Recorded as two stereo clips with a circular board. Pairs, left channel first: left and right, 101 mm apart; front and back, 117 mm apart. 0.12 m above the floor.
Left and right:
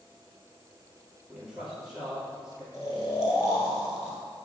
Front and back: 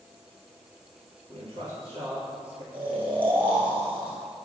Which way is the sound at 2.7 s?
145° left.